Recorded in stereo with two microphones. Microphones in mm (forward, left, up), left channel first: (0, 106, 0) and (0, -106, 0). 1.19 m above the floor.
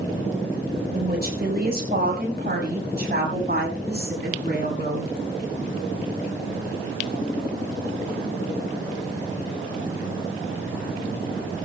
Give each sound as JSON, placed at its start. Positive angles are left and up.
{"t": 0.9, "sound": "a woman speaking", "side_deg": -50, "distance_m": 4.0}